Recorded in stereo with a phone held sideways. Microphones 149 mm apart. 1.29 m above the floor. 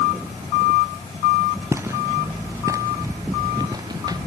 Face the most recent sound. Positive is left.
turn(degrees=-25)  # may be behind; listen again after turning